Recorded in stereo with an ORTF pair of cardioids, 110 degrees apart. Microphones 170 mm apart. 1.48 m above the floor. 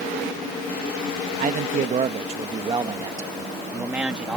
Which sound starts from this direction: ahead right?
A man speaking, at 1.4 s.